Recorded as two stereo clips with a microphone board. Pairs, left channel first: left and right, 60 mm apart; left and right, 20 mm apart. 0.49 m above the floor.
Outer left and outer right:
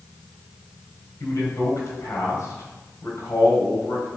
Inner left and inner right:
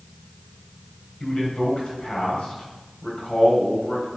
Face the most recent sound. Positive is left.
turn(degrees=65)  # may be behind; listen again after turning